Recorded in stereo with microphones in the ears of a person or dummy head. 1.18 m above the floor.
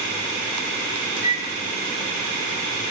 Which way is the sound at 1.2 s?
60° right (ahead or behind).